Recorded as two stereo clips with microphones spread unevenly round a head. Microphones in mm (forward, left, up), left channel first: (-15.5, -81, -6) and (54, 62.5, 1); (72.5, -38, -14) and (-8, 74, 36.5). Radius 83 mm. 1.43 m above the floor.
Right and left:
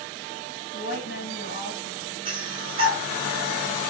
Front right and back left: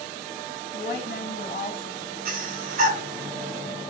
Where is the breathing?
125° left, 3.5 m.